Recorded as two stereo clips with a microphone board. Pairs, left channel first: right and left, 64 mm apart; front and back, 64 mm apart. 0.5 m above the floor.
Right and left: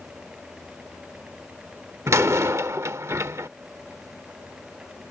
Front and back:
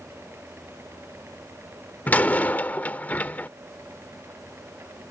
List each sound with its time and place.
2.1 s a door slam: 55° left